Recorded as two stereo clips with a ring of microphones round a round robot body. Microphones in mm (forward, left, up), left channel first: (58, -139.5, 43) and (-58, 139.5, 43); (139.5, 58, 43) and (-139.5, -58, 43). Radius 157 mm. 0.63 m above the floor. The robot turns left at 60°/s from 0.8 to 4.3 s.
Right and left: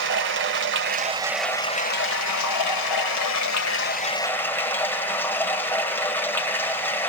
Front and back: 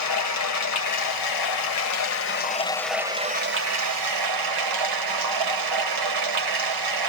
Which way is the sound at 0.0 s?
60° left.